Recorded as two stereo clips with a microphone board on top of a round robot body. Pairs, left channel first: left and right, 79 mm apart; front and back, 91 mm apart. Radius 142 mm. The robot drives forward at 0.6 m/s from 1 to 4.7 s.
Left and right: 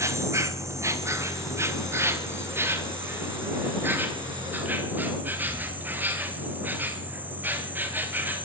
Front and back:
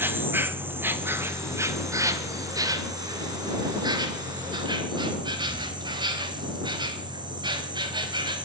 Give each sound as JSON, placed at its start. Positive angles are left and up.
{"t": 0.0, "sound": "an insect", "azimuth_deg": -125, "distance_m": 2.5}